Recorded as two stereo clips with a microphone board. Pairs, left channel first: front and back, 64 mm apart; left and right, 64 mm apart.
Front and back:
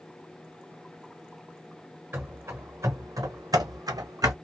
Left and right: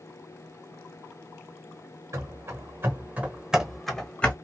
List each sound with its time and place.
2.1 s running footsteps: 125° right, 1.1 m; by 4.3 s 160° left, 0.9 m